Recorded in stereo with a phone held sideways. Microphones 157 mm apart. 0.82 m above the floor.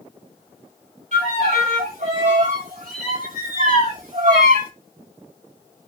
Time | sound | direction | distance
1.1 | a violin | 65° right (ahead or behind) | 4.5 m